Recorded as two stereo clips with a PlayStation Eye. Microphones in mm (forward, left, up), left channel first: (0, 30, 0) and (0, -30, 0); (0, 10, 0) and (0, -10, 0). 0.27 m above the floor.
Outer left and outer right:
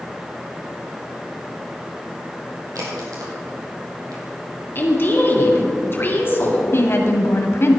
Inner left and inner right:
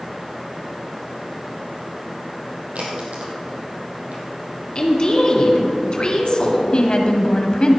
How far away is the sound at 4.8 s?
About 3 m.